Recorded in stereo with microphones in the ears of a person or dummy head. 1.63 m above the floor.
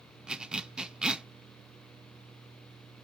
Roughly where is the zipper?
Centre.